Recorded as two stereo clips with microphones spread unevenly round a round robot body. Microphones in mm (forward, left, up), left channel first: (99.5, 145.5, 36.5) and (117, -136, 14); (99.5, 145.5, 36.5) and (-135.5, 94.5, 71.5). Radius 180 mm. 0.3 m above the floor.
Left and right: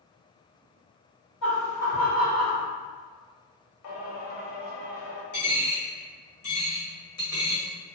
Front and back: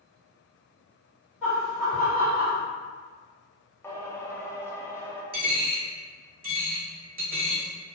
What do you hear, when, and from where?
1.4 s laughter: 100° left, 1.8 m; by 2.6 s 135° left, 1.7 m
3.8 s singing: 85° left, 0.8 m
5.3 s a dropped coin: 140° left, 1.8 m